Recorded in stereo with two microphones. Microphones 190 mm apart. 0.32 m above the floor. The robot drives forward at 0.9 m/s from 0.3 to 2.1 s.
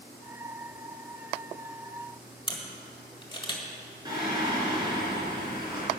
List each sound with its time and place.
2.5 s a camera shutter: 25° left (ahead or behind), 1.7 m
4.0 s singing: 20° right (ahead or behind), 3.5 m